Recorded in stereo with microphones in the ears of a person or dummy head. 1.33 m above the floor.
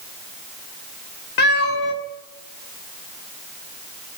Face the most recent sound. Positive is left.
turn(degrees=55)  # may be behind; listen again after turning